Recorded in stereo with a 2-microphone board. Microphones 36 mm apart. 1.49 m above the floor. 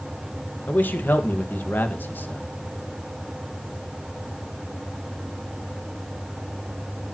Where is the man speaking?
65° left (ahead or behind), 1.8 m.